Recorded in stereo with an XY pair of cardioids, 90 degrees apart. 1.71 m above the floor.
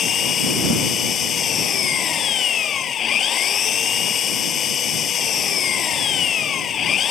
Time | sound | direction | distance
0.0 | an engine running | 65° left | ?